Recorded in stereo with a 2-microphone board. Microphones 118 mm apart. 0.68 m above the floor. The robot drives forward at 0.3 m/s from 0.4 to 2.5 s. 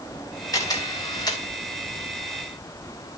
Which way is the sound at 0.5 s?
30° left (ahead or behind).